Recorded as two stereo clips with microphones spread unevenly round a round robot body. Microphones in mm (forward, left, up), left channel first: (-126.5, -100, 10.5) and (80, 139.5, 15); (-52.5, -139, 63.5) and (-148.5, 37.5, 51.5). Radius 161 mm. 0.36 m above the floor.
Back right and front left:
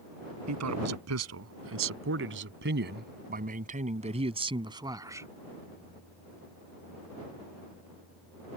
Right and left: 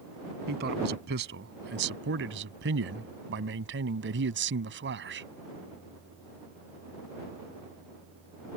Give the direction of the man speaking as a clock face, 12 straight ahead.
9 o'clock.